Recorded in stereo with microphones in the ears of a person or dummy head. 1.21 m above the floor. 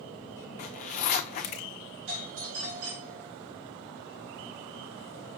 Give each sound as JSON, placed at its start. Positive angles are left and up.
{"t": 0.6, "sound": "a zipper", "side_deg": 40, "distance_m": 0.6}
{"t": 2.1, "sound": "a doorbell", "side_deg": -80, "distance_m": 3.0}